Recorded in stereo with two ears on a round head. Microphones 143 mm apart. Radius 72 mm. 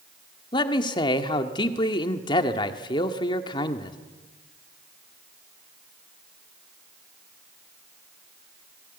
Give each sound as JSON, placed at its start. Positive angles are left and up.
{"t": 0.5, "sound": "a man speaking", "side_deg": 30, "distance_m": 1.7}